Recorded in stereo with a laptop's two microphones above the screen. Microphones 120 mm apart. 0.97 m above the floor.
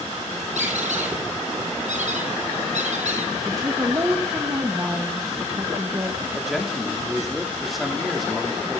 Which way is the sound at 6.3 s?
Centre (ahead or behind).